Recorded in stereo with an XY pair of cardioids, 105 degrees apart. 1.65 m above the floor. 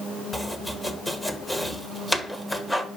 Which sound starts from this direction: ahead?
Chopping, at 0.3 s.